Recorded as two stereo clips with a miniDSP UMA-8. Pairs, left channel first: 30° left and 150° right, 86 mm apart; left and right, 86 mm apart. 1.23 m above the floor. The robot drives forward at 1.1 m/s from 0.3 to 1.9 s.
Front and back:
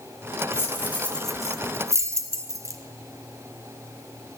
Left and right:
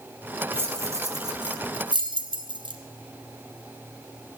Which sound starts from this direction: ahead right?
Keys jangling, at 0.5 s.